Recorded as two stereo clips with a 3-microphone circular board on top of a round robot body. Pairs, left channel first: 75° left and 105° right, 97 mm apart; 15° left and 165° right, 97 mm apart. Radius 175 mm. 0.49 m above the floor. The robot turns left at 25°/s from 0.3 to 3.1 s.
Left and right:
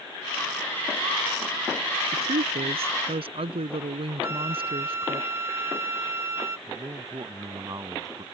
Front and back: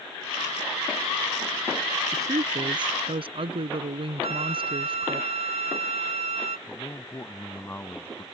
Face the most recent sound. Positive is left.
turn(degrees=-55)